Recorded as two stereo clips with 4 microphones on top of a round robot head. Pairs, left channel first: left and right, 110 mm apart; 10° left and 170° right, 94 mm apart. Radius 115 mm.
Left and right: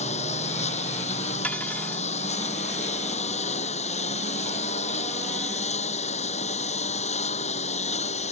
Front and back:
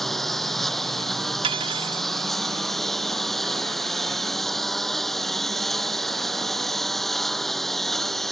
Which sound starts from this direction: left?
A lawn mower, at 0.0 s.